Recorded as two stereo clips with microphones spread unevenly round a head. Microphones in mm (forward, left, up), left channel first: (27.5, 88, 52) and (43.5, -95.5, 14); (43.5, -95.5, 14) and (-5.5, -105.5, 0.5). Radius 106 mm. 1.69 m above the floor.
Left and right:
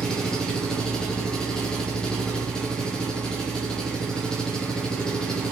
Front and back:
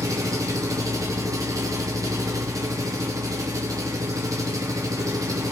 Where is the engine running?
175° left, 0.9 m.